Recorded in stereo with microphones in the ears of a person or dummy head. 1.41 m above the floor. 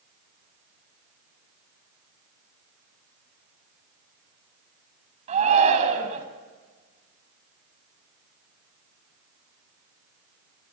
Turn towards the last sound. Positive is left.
turn(degrees=-40)  # may be behind; listen again after turning